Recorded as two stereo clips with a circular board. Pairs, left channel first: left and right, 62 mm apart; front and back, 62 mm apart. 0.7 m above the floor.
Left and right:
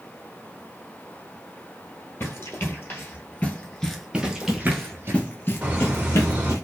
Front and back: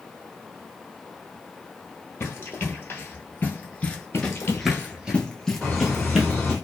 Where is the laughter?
60° right, 1.0 m.